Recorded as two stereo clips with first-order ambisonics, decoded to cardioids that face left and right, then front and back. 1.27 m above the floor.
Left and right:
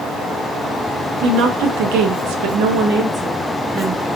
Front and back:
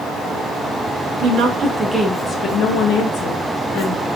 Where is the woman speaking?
130° right, 0.8 m; by 4.0 s 10° right, 1.1 m.